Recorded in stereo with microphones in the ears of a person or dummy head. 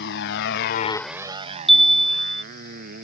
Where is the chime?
Centre (ahead or behind).